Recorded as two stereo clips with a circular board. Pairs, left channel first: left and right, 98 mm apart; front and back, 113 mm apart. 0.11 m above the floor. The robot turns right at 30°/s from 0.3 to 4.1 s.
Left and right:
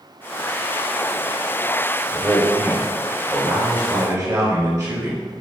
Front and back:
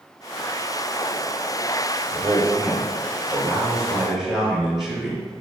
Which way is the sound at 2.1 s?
155° right.